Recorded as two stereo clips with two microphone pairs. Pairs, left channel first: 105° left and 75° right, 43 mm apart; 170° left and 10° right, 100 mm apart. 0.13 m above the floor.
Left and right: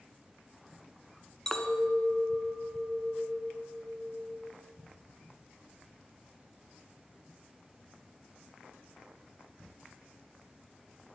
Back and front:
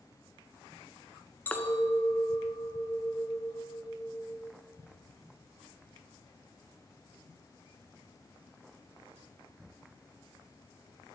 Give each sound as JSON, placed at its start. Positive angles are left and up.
{"t": 1.5, "sound": "a clink", "azimuth_deg": 155, "distance_m": 0.8}